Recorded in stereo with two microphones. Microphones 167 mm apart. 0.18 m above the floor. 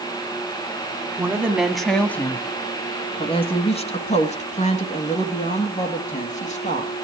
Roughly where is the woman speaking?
Centre.